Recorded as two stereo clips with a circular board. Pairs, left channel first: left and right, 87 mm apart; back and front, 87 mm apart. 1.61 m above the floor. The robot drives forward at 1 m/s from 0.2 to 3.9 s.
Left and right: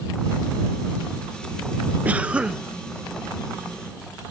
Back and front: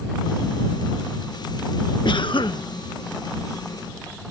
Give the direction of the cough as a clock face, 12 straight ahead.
5 o'clock.